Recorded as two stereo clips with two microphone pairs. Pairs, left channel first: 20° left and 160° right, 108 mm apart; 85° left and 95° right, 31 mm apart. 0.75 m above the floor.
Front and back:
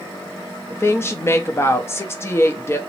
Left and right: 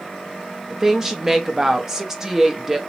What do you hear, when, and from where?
0.7 s a woman speaking: 30° right, 0.7 m